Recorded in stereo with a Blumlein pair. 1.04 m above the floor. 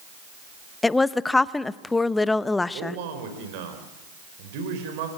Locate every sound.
0.8 s a woman speaking: 10° left, 0.8 m
2.7 s a man speaking: 50° right, 5 m